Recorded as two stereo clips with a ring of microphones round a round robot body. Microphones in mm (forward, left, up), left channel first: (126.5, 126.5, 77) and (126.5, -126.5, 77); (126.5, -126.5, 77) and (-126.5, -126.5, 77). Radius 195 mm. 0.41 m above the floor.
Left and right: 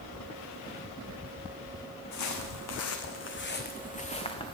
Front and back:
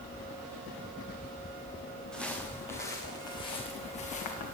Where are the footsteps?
100° left, 1.4 m; by 4.5 s 15° left, 2 m.